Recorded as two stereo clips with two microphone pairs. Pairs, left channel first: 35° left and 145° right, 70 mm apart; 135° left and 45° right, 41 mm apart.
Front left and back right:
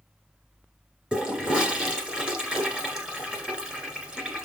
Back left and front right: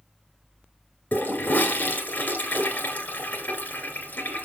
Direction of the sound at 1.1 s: 145° left.